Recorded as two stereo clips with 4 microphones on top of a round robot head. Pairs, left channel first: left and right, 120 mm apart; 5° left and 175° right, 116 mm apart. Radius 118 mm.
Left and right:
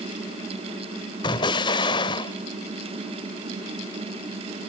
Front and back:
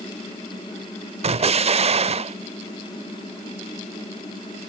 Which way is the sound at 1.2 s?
150° left.